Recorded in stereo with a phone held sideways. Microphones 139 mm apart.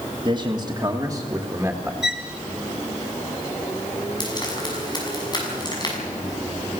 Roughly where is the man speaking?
Right.